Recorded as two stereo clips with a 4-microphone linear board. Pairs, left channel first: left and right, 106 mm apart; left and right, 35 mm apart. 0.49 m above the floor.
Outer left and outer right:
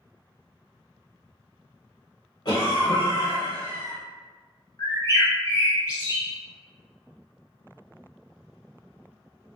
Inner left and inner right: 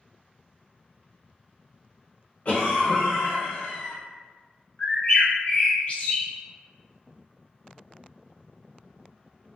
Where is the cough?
40° left (ahead or behind), 0.9 m.